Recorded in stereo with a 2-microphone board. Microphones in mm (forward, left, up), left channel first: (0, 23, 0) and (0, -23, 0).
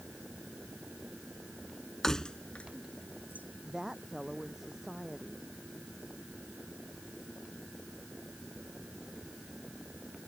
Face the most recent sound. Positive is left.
turn(degrees=-10)  # may be behind; listen again after turning